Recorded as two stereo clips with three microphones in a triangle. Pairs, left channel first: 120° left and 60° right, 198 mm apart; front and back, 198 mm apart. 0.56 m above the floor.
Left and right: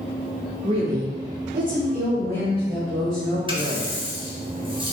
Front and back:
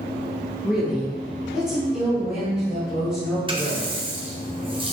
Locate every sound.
0.6 s a woman speaking: 95° right, 0.8 m; by 4.0 s 90° right, 2.5 m
3.5 s a running tap: 120° right, 0.8 m